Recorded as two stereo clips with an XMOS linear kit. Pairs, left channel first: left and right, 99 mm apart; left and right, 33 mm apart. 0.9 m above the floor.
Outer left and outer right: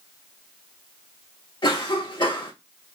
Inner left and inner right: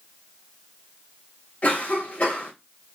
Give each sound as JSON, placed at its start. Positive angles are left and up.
{"t": 1.6, "sound": "a cough", "side_deg": 50, "distance_m": 2.0}